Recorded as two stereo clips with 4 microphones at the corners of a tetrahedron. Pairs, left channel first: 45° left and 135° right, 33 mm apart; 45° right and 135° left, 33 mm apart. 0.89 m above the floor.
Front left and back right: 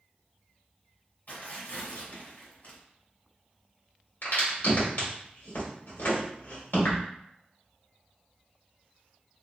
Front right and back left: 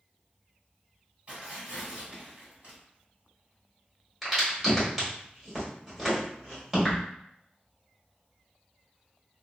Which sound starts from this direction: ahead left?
A crack, at 4.2 s.